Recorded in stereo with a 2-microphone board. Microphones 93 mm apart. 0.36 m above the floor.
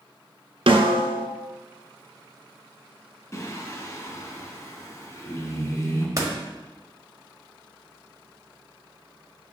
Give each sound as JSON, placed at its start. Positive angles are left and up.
{"t": 0.7, "sound": "a snare drum", "side_deg": -85, "distance_m": 0.9}
{"t": 3.3, "sound": "singing", "side_deg": 30, "distance_m": 1.0}
{"t": 6.2, "sound": "a door slam", "side_deg": -40, "distance_m": 1.0}